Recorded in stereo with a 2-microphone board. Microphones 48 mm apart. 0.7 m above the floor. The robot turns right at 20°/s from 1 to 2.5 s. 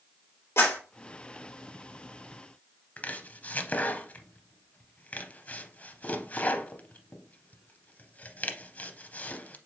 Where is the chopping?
35° left (ahead or behind), 0.6 m.